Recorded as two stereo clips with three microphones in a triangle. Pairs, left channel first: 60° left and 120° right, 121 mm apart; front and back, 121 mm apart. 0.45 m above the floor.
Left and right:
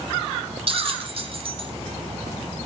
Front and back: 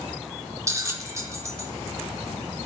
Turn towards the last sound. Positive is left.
turn(degrees=-125)